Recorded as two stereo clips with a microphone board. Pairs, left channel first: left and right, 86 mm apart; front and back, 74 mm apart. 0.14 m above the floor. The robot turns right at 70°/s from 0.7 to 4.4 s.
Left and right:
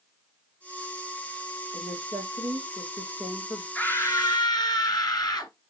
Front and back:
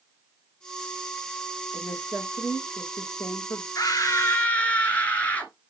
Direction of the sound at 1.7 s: 80° right.